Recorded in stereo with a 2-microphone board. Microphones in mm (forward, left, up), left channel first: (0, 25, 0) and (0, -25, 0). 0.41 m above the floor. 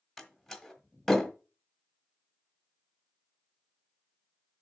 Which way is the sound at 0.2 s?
5° left (ahead or behind).